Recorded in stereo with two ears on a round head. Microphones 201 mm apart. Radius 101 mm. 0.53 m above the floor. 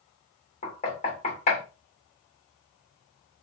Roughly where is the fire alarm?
I don't hear a fire alarm.